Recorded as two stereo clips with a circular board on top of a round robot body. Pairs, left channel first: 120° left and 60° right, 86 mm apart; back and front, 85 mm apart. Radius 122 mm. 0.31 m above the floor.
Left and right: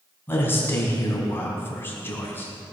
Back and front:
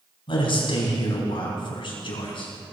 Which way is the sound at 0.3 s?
175° right.